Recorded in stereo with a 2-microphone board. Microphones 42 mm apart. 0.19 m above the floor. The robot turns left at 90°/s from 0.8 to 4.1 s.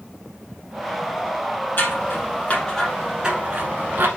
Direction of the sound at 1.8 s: 55° left (ahead or behind).